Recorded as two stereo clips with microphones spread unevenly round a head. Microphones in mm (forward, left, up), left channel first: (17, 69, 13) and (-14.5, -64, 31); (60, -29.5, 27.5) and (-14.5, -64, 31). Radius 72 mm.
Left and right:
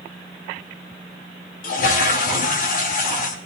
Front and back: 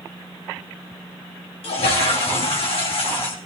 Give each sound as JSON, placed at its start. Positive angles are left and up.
{"t": 1.6, "sound": "a toilet flushing", "azimuth_deg": 45, "distance_m": 2.5}